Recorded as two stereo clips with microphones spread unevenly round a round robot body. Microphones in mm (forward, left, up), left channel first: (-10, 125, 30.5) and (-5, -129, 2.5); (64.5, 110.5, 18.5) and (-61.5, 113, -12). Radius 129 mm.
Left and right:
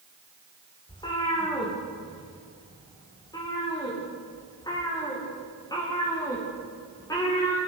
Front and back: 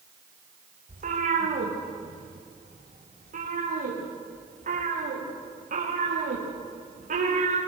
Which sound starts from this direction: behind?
A cat meowing, at 0.9 s.